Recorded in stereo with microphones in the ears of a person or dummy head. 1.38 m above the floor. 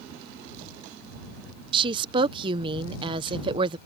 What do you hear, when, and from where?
1.7 s a woman speaking: 25° right (ahead or behind)